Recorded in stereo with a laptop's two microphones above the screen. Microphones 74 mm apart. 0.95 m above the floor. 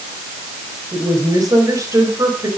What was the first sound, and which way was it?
A woman speaking, 55° right (ahead or behind).